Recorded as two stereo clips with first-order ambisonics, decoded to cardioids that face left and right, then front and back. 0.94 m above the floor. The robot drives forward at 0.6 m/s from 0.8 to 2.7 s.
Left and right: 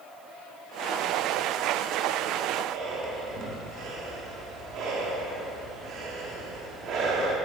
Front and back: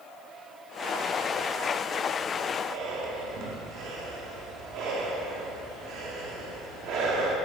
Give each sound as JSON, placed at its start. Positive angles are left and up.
{"t": 2.6, "sound": "breathing", "azimuth_deg": -135, "distance_m": 2.5}